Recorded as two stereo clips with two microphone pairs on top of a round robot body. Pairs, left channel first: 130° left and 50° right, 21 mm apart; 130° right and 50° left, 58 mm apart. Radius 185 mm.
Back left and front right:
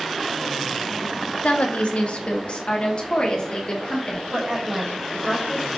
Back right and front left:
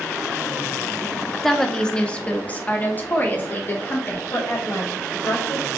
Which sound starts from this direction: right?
A woman speaking, at 4.3 s.